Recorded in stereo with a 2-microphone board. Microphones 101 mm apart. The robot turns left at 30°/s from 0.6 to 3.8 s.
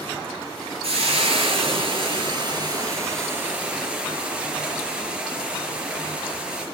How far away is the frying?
About 4 m.